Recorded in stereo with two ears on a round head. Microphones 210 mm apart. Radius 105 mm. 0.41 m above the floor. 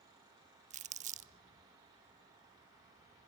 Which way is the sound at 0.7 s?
30° right (ahead or behind).